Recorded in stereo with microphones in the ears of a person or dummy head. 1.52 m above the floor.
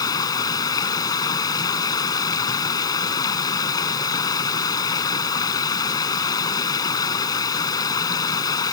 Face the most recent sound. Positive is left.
turn(degrees=25)  # may be behind; listen again after turning